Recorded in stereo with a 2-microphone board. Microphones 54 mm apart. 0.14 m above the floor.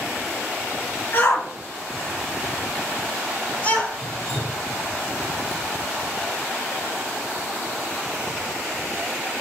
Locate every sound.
1.1 s a shout: 40° left (ahead or behind), 1.8 m; by 3.9 s 30° left (ahead or behind), 4.5 m
4.0 s dripping: 50° left (ahead or behind), 1.6 m